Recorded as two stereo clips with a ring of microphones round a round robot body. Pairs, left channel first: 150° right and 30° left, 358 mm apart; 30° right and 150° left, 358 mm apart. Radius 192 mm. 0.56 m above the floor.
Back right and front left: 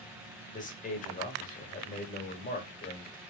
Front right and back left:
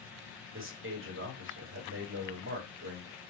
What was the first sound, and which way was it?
A man speaking, 160° left.